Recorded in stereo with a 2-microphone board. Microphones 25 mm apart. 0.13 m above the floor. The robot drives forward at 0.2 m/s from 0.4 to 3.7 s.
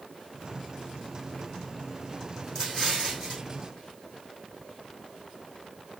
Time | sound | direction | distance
2.5 | an explosion | 15° left (ahead or behind) | 3 m